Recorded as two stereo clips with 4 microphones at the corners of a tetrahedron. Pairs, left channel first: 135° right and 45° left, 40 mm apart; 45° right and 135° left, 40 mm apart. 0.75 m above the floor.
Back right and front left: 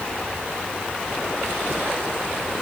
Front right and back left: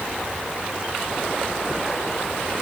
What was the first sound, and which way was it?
Only background noise.